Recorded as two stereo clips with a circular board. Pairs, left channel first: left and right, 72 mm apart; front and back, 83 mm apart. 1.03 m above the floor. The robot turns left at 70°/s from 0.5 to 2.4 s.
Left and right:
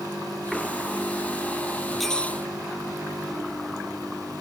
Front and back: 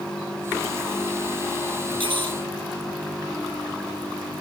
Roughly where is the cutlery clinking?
Behind.